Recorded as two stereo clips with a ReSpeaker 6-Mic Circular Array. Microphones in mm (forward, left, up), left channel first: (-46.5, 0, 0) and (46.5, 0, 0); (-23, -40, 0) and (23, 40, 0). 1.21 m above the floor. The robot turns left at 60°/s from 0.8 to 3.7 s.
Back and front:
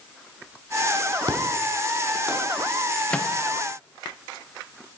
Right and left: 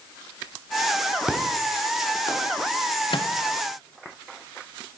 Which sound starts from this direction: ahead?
An explosion, at 1.3 s.